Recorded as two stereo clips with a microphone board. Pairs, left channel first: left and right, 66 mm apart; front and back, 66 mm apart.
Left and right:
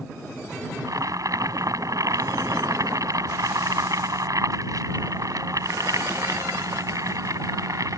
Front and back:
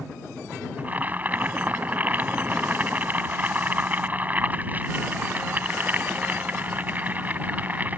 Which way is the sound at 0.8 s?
115° right.